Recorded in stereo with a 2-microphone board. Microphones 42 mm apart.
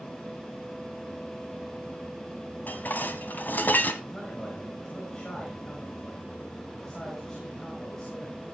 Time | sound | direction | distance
2.7 | dishes clattering | 50° left (ahead or behind) | 1.6 m
4.0 | a man speaking | 15° left (ahead or behind) | 4 m